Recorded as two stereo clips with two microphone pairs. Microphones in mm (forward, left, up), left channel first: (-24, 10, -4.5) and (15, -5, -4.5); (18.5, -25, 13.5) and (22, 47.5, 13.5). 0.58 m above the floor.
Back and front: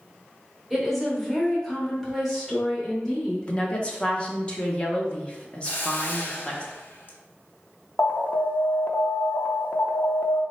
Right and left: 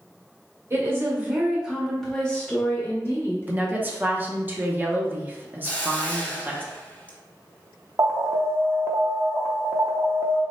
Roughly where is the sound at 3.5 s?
Behind left.